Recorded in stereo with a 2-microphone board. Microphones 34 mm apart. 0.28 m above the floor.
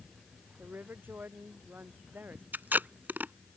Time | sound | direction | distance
0.6 | a woman speaking | 70° right (ahead or behind) | ?
2.5 | tape being pulled | 70° right (ahead or behind) | ?